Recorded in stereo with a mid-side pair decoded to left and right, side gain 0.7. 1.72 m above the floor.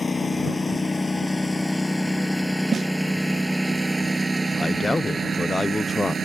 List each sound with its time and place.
0.0 s a lawn mower: 15° left; by 6.2 s 30° right
2.7 s a snare drum: 25° right
4.5 s a man speaking: 15° left